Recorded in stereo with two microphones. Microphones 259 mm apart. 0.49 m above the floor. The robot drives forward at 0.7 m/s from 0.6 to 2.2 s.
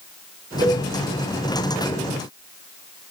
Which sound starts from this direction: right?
A cowbell, at 0.6 s.